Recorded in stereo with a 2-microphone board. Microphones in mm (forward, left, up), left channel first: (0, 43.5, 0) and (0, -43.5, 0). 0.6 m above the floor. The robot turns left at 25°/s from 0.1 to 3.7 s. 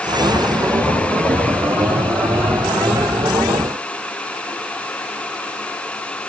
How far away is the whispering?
No whispering in this recording.